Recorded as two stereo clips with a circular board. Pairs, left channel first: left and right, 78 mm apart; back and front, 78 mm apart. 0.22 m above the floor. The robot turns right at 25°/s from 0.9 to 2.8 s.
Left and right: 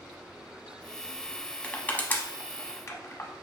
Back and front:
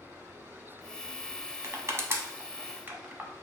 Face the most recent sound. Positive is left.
turn(degrees=55)